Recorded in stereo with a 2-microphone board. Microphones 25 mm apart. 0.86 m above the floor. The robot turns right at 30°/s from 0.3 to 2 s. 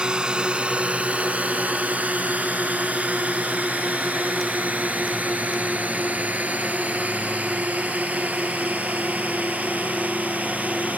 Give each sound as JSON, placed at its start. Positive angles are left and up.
{"t": 0.0, "sound": "a drone", "side_deg": -40}